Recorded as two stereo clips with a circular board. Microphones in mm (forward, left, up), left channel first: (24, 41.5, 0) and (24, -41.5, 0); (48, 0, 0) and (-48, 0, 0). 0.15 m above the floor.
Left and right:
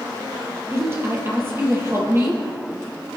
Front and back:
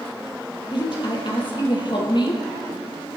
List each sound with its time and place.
0.7 s a woman speaking: 30° right, 4.5 m